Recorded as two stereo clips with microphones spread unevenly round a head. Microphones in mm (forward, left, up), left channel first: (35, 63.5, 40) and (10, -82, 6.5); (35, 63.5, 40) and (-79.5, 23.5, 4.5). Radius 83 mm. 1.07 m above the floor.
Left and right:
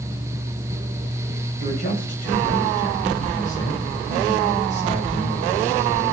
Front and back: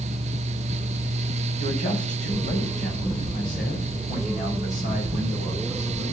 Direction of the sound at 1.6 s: 45° left.